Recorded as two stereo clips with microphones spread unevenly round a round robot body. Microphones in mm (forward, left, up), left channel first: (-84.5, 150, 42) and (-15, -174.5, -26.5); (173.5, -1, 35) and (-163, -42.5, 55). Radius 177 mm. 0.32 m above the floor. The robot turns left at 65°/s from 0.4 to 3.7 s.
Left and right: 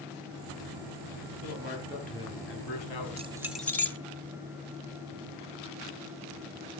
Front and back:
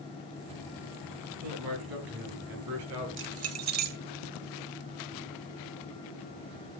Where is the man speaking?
125° right, 7.5 m; by 3.1 s 125° left, 7.5 m.